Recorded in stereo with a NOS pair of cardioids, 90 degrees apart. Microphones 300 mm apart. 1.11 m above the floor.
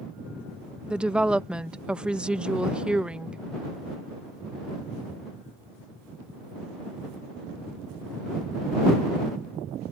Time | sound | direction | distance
0.9 | a woman speaking | 5° right | ?